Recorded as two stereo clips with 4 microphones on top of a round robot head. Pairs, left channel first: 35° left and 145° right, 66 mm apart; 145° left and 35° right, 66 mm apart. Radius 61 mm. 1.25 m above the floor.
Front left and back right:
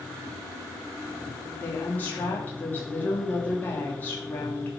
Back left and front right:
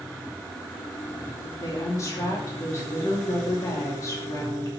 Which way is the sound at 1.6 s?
100° left.